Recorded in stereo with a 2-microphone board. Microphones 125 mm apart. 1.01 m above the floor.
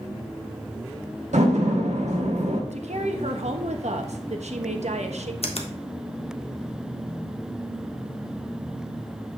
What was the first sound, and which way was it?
A door slam, 75° right (ahead or behind).